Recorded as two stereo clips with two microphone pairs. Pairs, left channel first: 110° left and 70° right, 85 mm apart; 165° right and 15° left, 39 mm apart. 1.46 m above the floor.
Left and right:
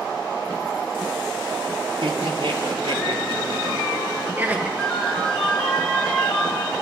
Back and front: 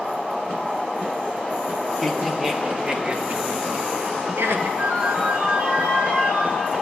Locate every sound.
2.0 s laughter: 70° right, 3.5 m; by 4.7 s 10° left, 2.5 m
4.8 s a ringtone: 30° left, 6 m